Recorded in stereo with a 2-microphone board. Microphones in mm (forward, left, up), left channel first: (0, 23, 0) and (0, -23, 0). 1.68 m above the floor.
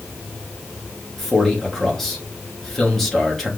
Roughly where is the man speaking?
Centre.